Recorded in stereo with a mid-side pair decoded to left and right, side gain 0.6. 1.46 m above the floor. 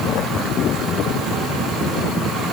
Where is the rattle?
I don't hear a rattle.